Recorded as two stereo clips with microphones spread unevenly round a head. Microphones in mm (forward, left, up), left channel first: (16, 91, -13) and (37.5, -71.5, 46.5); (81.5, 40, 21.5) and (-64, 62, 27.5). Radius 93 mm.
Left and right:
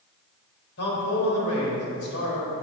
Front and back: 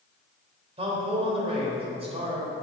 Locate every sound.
0.8 s a man speaking: 120° left, 3.5 m